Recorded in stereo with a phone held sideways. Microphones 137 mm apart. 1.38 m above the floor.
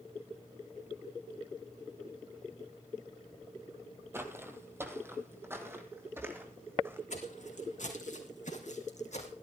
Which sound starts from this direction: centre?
Footsteps, at 4.1 s.